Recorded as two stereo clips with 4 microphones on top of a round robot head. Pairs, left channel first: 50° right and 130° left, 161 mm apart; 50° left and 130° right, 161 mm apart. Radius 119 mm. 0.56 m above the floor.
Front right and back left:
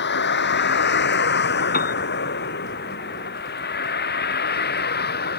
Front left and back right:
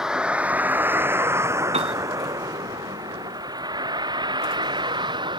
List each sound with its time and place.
0.0 s a vehicle: 45° right; by 5.4 s 70° right
1.7 s a piano: 80° right